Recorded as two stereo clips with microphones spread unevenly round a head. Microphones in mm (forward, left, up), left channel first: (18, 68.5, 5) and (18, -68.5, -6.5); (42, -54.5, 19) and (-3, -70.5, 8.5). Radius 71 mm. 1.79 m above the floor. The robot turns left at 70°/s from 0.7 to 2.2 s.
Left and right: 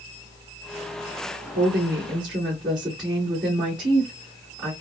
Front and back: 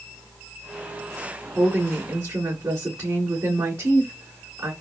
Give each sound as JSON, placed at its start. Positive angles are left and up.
{"t": 1.6, "sound": "a woman speaking", "azimuth_deg": -110, "distance_m": 2.0}